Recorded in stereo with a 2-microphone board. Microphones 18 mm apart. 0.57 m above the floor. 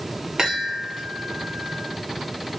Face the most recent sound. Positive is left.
turn(degrees=-40)  # may be behind; listen again after turning